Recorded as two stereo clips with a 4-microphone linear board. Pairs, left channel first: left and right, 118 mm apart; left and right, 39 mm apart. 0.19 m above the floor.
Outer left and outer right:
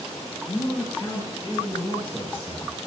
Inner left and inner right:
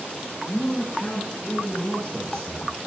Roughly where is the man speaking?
Left.